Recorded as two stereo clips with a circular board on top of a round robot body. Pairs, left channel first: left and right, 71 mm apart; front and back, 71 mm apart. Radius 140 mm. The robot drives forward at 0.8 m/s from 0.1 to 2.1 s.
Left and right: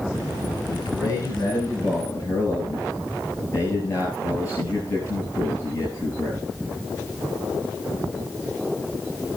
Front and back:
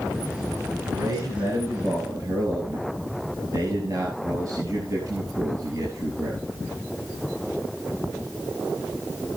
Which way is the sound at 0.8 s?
140° left.